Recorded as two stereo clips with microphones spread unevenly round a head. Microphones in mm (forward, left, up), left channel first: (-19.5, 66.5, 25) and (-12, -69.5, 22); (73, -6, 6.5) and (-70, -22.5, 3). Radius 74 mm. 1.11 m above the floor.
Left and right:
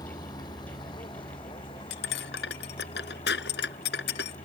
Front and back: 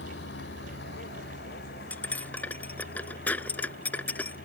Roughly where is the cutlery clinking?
Left.